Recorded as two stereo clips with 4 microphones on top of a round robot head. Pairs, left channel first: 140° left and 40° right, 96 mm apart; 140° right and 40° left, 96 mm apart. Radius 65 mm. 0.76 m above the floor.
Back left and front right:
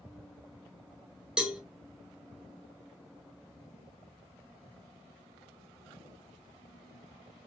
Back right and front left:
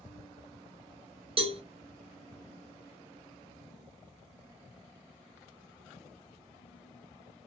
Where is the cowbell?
40° left, 0.6 m.